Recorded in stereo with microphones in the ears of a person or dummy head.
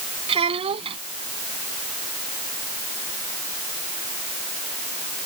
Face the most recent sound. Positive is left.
turn(degrees=-30)  # may be behind; listen again after turning